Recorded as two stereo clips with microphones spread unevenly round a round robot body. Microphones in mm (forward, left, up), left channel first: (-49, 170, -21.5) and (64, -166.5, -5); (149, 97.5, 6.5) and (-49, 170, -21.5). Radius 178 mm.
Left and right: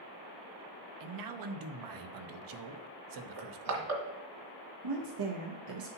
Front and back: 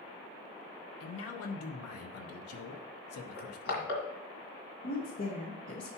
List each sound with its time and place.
1.0 s a man speaking: 35° right, 0.8 m
3.4 s crushing: 30° right, 1.8 m
4.8 s a woman speaking: 60° right, 0.9 m